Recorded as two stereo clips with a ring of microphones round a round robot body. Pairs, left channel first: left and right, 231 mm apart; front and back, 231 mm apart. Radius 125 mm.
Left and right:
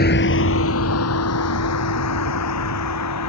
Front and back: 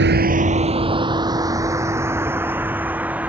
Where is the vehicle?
140° left; by 3.3 s 95° left.